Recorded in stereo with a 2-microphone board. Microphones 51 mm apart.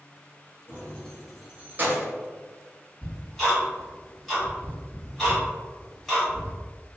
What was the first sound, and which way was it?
Keys jangling, 35° left (ahead or behind).